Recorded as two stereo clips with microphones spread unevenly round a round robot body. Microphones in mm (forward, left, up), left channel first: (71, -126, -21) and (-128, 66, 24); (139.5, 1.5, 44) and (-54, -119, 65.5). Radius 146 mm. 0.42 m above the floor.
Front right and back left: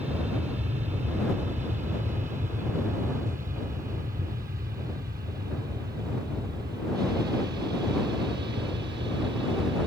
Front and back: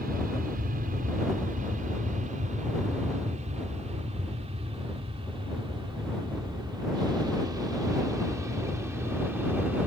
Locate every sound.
0.0 s an aircraft: 160° right; by 9.9 s 125° left